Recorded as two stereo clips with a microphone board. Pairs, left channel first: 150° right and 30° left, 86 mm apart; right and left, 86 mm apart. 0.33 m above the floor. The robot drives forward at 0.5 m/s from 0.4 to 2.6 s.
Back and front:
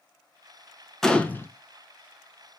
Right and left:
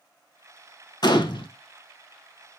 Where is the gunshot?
65° right, 0.5 m; by 1.5 s 90° right, 0.5 m.